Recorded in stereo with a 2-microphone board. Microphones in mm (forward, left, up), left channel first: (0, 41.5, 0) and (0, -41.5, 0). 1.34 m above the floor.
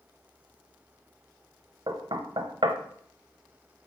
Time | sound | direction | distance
1.9 | knocking | 60° right (ahead or behind) | 0.7 m